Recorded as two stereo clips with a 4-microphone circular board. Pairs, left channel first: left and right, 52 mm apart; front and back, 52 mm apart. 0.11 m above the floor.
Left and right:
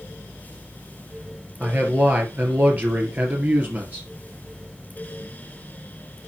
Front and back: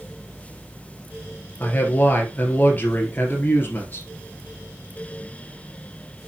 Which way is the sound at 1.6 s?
45° right.